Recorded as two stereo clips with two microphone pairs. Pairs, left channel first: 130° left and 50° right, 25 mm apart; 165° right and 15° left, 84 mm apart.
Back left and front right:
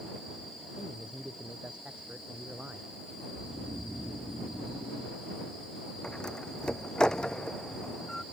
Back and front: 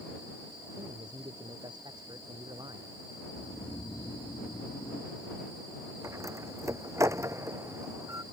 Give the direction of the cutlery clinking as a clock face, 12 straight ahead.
No cutlery clinking in this recording.